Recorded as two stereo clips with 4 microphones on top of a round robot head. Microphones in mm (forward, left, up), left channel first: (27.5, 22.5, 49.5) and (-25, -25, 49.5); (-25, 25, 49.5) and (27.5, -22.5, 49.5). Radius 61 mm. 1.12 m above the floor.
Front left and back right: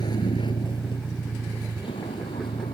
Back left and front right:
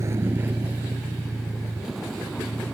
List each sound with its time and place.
0.0 s a vehicle: 10° left; by 2.7 s 55° left